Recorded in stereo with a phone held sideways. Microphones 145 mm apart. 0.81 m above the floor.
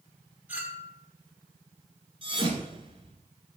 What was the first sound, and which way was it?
A clink, 15° right (ahead or behind).